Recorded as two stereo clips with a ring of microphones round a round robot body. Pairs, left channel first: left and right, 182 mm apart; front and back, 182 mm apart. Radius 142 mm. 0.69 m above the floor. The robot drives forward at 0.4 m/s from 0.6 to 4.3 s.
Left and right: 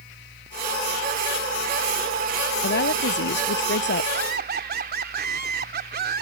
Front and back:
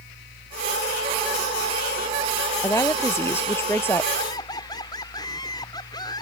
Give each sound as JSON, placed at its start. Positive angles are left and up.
{"t": 2.6, "sound": "a woman speaking", "azimuth_deg": 75}
{"t": 4.1, "sound": "laughter", "azimuth_deg": -70}